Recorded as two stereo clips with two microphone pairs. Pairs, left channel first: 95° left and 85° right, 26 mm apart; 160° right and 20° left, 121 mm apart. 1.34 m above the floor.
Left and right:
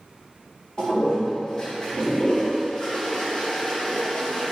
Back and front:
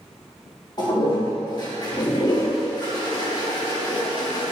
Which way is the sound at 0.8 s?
145° left.